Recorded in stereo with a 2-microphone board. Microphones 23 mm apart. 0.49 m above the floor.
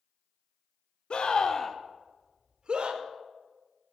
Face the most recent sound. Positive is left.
turn(degrees=-50)  # may be behind; listen again after turning